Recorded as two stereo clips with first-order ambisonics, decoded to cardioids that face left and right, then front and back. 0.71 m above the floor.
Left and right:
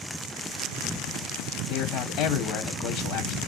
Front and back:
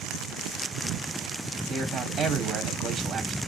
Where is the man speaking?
110° left, 1.7 m.